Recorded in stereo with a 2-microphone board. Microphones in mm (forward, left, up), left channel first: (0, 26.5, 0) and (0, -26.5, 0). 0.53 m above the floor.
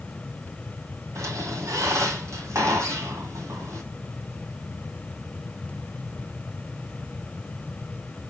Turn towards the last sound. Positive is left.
turn(degrees=-70)  # may be behind; listen again after turning